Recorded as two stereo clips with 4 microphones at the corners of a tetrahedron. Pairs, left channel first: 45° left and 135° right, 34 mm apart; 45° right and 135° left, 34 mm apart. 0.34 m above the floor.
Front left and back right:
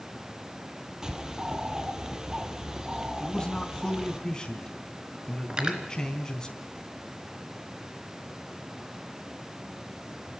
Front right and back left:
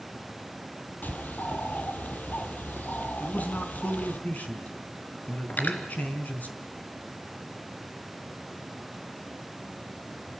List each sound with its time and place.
1.0 s a bird: 65° right, 1.4 m
3.2 s a man speaking: 20° right, 3.5 m
5.5 s cutlery clinking: 75° right, 2.5 m